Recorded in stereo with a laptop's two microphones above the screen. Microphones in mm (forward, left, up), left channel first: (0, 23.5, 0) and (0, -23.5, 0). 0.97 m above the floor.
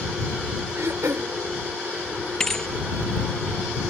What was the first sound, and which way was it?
Throat clearing, 85° right.